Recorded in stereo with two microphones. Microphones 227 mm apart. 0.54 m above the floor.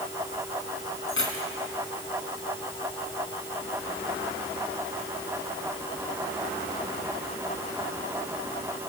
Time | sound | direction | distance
1.1 | keys jangling | 65° left (ahead or behind) | 3 m